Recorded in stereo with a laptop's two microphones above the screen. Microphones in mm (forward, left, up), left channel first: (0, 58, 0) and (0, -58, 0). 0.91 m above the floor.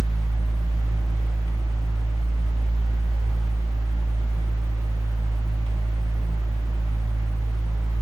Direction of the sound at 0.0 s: 55° right (ahead or behind).